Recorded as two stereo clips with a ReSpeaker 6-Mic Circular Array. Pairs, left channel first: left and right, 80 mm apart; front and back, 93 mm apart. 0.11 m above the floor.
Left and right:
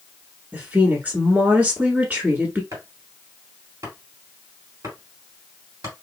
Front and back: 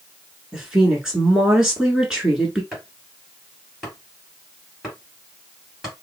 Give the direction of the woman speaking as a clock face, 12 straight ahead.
4 o'clock.